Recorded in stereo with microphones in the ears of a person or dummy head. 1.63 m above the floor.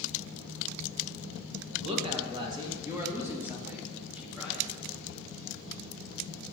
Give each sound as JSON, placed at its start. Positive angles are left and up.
{"t": 1.8, "sound": "a woman speaking", "side_deg": -35, "distance_m": 1.7}